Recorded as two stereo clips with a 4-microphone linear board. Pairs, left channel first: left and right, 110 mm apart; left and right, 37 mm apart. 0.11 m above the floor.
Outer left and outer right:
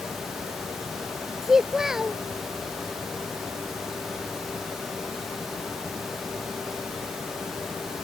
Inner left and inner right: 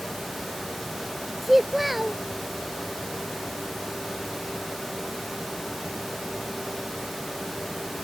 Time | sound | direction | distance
1.4 | a child speaking | 5° right (ahead or behind) | ?